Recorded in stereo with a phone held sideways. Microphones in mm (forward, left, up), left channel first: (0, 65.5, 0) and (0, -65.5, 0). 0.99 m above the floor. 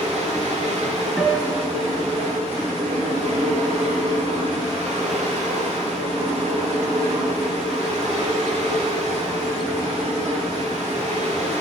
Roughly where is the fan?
Right.